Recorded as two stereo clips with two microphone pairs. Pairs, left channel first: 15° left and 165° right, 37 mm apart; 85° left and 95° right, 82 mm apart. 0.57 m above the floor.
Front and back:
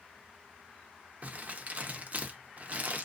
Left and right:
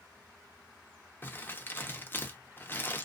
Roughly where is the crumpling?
Behind left.